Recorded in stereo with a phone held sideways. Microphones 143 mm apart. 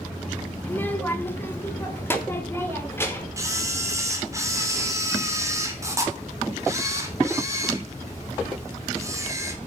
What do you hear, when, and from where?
0.6 s a child speaking: 10° left (ahead or behind), 1.4 m; by 3.3 s 15° left (ahead or behind), 4.5 m
3.4 s a camera shutter: 20° right (ahead or behind), 2.5 m